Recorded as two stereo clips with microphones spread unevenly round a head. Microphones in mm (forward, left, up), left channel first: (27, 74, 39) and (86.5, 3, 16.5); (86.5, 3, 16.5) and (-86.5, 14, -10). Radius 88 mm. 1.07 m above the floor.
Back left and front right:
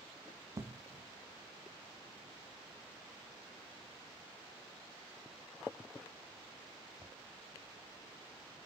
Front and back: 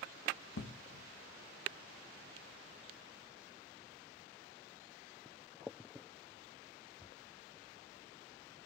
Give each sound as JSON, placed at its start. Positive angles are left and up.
{"t": 0.6, "sound": "an explosion", "azimuth_deg": -5, "distance_m": 1.6}